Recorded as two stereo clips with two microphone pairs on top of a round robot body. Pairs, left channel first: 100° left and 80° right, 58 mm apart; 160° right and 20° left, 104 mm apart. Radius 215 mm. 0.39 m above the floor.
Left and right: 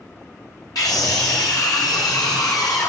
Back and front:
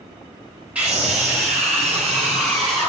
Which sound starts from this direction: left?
A scream, at 0.8 s.